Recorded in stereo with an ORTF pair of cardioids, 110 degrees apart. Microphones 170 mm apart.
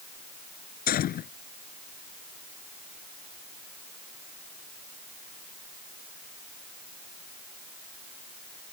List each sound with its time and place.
0.9 s a gunshot: 60° left